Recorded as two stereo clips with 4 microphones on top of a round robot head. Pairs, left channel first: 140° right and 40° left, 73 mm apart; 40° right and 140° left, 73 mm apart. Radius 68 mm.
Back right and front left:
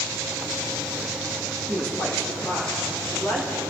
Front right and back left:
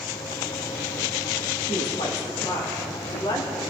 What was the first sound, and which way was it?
A woman speaking, 55° right.